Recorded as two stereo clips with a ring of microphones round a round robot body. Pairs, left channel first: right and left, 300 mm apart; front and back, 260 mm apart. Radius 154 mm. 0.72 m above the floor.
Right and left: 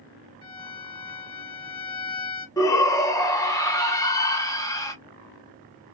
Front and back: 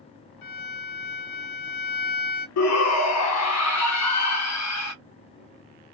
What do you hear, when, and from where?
0.4 s a violin: 15° right, 0.9 m
2.6 s a shout: 10° right, 0.8 m